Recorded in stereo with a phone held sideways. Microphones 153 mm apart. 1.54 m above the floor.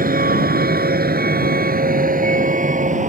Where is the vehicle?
70° right (ahead or behind); by 3.1 s 50° right (ahead or behind).